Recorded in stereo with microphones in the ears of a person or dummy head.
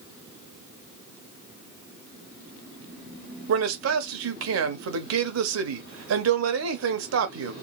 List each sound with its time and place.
3.5 s a man speaking: 75° right (ahead or behind), 0.7 m